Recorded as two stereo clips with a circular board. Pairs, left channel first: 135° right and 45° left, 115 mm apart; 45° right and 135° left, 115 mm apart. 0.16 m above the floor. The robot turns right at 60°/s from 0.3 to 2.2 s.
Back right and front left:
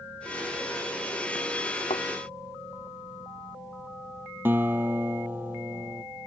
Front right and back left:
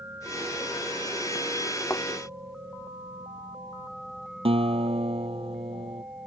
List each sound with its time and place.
1.9 s a thud: 115° right; by 2.1 s 105° right
4.5 s a guitar: 115° left